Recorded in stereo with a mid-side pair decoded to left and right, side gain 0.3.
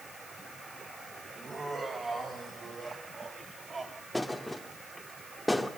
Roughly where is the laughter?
Ahead right.